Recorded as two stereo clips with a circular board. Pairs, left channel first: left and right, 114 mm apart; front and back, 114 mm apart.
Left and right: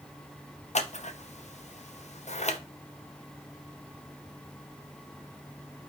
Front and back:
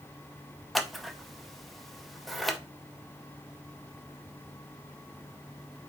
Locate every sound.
0.8 s scissors: 90° left, 0.6 m